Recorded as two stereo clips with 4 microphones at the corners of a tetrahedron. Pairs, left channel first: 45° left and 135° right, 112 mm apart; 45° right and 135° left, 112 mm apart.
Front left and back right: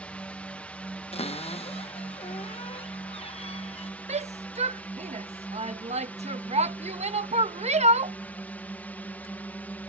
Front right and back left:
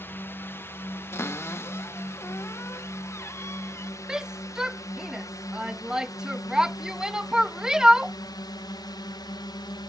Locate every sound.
0.0 s a drone: 15° right; by 9.9 s 25° right
1.1 s a cupboard door: 20° left
4.1 s a shout: 140° right